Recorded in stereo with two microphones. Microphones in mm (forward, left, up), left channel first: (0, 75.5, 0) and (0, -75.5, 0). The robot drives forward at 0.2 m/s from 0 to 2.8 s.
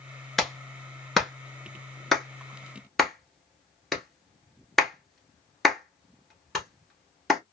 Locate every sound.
0.4 s a clap: centre (ahead or behind), 0.9 m